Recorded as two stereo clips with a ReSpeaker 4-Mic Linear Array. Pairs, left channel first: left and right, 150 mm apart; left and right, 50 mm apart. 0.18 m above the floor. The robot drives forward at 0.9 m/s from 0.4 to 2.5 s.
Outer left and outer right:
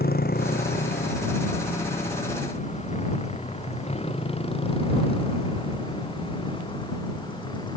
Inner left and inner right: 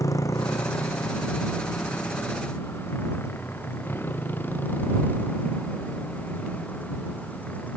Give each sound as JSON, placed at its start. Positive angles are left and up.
{"t": 0.0, "sound": "a motorcycle", "side_deg": 80}